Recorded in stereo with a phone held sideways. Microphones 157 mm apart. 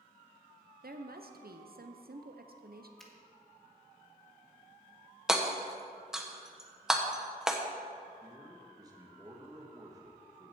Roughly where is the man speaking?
Right.